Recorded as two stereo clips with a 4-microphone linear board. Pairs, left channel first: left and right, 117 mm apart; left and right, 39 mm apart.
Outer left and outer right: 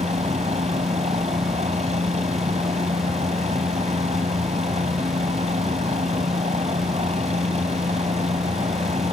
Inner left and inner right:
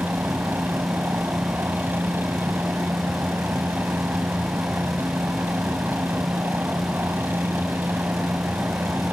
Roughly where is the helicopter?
Right.